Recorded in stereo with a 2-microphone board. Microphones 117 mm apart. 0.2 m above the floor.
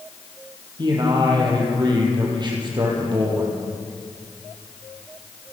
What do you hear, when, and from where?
0.8 s a man speaking: 40° right (ahead or behind), 7.5 m